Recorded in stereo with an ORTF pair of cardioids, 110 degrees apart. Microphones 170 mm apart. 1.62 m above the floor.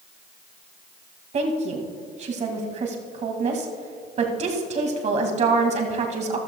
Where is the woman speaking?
45° right, 2 m.